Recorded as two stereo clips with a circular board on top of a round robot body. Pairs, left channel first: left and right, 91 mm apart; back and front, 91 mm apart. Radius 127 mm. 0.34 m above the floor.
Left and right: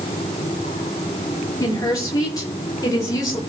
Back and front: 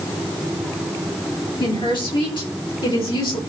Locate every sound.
1.6 s a woman speaking: 145° left, 7 m; by 3.4 s 140° left, 8 m